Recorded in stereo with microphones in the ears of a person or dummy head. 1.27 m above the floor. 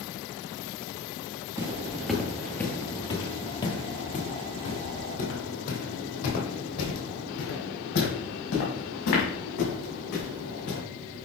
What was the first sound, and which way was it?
Footsteps, 15° right (ahead or behind).